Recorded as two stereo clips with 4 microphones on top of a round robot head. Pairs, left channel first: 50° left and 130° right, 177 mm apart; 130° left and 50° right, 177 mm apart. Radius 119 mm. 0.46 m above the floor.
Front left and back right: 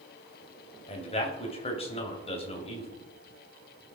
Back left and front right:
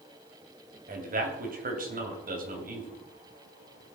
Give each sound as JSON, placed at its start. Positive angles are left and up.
{"t": 0.9, "sound": "a man speaking", "azimuth_deg": -10, "distance_m": 2.5}